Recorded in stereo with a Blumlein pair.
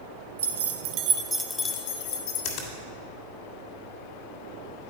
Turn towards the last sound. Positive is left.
turn(degrees=50)